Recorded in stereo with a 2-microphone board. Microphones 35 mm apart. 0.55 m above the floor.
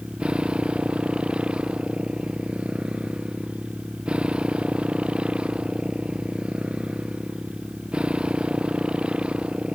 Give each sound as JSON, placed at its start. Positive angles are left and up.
{"t": 0.0, "sound": "a motorcycle", "side_deg": -30}